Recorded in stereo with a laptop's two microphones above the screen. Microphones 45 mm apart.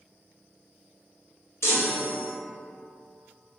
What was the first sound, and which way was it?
A chime, 75° left (ahead or behind).